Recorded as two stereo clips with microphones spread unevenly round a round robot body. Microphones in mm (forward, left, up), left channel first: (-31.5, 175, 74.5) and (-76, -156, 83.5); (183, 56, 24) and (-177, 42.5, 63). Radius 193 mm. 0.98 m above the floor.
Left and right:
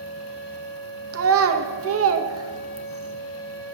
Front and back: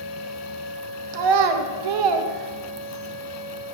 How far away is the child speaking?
About 0.8 m.